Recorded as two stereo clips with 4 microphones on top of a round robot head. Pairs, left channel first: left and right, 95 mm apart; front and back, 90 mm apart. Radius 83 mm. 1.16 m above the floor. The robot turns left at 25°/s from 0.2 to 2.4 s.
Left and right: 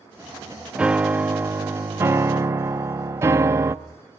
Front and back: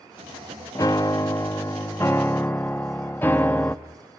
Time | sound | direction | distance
0.8 | a piano | 20° right | 0.6 m